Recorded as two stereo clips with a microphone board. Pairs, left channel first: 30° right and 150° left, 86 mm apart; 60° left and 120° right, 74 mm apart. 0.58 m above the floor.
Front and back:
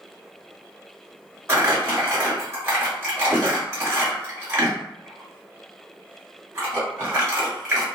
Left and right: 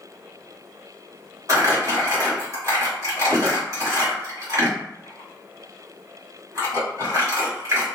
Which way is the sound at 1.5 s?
155° right.